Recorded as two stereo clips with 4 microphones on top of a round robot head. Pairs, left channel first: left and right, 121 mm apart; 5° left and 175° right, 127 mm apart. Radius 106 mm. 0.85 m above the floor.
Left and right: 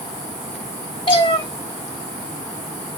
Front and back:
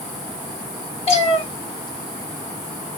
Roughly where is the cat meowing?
Ahead left.